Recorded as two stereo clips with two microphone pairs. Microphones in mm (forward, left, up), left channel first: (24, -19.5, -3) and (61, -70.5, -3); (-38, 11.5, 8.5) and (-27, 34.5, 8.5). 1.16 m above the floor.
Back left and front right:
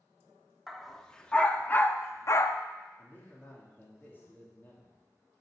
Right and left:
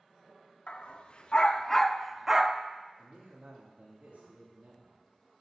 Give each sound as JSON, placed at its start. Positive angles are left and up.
{"t": 0.7, "sound": "a dog barking", "azimuth_deg": -145, "distance_m": 1.1}
{"t": 3.0, "sound": "a man speaking", "azimuth_deg": 70, "distance_m": 3.0}